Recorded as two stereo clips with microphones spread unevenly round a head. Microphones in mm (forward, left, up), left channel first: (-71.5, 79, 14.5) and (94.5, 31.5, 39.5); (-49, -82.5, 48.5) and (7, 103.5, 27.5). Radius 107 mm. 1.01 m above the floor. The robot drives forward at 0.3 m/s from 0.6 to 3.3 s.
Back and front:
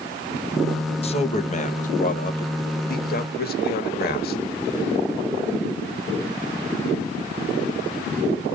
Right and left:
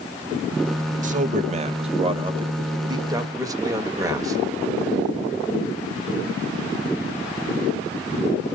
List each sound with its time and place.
1.0 s a man speaking: 115° left, 0.9 m; by 4.4 s 145° left, 1.4 m